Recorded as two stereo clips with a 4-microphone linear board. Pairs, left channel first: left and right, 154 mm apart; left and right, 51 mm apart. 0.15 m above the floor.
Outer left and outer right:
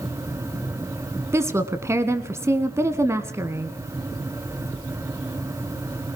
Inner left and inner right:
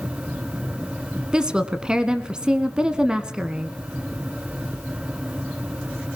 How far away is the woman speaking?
About 1.2 m.